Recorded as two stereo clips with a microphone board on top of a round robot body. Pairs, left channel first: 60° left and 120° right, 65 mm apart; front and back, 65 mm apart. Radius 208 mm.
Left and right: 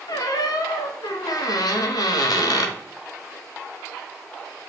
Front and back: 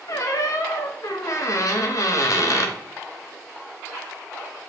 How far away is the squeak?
About 0.6 m.